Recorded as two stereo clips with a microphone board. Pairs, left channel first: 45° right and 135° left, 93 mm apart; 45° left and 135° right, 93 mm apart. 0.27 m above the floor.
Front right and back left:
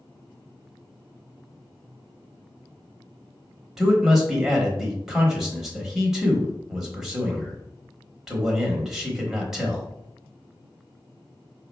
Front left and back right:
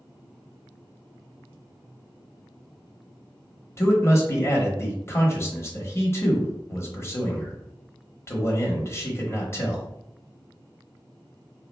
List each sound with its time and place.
3.8 s a man speaking: 55° left, 1.0 m